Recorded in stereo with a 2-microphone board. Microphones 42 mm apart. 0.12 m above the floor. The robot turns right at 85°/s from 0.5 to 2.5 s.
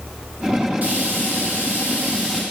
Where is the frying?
150° right, 4.5 m; by 2.4 s 15° right, 4.5 m.